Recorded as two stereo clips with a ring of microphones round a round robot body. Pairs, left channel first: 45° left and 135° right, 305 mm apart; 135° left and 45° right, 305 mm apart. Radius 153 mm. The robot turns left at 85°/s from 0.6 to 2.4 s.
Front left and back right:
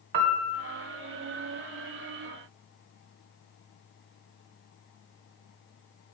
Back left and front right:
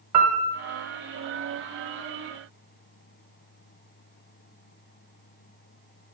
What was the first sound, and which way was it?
A piano, 125° right.